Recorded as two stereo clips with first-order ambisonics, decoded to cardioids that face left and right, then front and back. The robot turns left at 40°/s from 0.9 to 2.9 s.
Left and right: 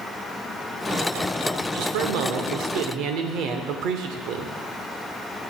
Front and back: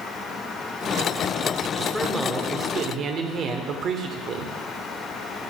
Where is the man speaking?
80° right, 0.9 m; by 4.5 s 125° right, 0.9 m.